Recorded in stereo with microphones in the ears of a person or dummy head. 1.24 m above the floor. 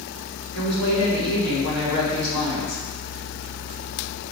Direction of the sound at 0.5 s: 70° left (ahead or behind).